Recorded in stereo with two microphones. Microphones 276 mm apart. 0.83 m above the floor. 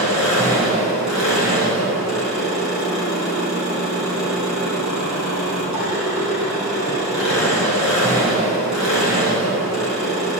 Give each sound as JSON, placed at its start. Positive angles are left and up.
{"t": 0.0, "sound": "an engine running", "side_deg": 85, "distance_m": 3.0}